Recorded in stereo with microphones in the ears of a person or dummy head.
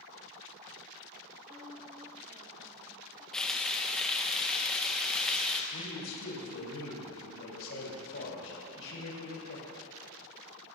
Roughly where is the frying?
Centre.